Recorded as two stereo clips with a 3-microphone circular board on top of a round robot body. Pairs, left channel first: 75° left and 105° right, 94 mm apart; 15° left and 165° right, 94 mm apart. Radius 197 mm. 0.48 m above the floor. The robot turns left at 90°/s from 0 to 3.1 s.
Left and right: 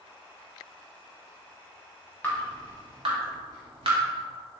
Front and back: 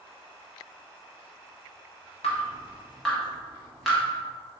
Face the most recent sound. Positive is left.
turn(degrees=-75)